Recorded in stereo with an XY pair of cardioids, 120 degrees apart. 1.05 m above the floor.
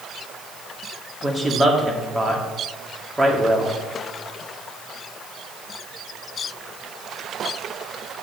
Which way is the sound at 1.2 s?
20° right.